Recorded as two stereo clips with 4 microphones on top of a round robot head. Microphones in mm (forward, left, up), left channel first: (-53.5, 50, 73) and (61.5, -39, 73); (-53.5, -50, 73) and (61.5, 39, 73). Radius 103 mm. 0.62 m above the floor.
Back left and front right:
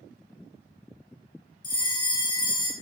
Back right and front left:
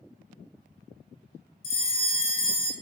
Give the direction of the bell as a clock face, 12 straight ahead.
5 o'clock.